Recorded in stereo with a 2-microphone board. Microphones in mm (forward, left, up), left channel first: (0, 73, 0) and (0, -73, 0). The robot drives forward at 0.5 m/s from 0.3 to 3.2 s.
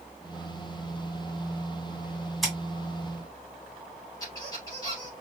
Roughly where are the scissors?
Centre.